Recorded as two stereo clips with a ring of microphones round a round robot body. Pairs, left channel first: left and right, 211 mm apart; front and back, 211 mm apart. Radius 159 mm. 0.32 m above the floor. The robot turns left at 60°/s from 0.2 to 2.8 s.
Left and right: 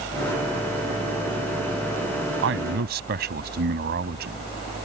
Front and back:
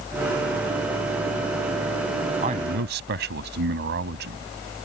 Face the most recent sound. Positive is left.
turn(degrees=-135)